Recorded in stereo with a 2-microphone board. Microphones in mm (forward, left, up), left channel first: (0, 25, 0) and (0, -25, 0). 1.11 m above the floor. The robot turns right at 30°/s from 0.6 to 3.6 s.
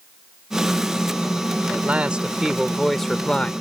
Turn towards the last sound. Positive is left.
turn(degrees=25)